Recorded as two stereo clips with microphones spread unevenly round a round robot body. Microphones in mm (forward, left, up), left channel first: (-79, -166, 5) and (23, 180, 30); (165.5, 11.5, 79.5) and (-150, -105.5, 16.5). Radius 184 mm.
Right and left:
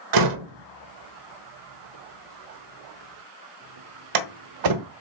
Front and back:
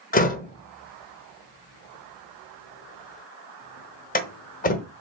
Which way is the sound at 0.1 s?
90° left.